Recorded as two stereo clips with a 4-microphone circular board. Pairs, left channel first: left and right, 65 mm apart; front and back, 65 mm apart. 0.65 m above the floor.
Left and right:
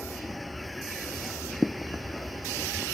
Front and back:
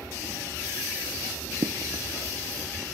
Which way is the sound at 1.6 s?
Straight behind.